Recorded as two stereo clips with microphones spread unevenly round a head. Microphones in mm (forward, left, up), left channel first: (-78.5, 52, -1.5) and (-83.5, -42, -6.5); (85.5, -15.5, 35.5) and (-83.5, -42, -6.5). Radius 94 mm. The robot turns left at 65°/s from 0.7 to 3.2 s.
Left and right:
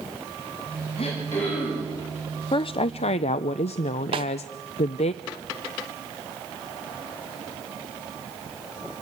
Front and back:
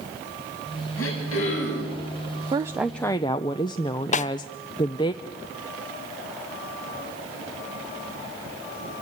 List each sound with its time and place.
1.0 s throat clearing: 35° left, 7 m; by 1.9 s 30° right, 7 m
2.5 s a woman speaking: 125° left, 0.5 m; by 5.1 s 80° left, 0.5 m
4.1 s a snare drum: 45° right, 0.6 m